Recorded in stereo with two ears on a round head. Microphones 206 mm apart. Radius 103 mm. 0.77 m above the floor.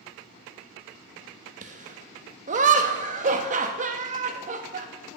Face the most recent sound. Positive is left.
turn(degrees=-35)  # may be behind; listen again after turning